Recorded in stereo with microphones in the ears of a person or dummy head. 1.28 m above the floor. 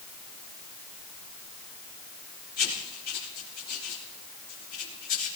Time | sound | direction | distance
2.6 | writing | 50° left (ahead or behind) | 5 m